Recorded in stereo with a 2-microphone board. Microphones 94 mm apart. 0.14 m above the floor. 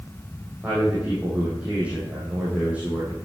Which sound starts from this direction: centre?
A man speaking, at 0.6 s.